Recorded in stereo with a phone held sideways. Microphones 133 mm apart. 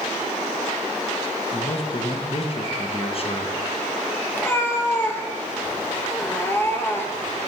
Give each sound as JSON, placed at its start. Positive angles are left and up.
{"t": 1.5, "sound": "a man speaking", "side_deg": 45, "distance_m": 1.0}
{"t": 4.3, "sound": "a cat meowing", "side_deg": 15, "distance_m": 0.9}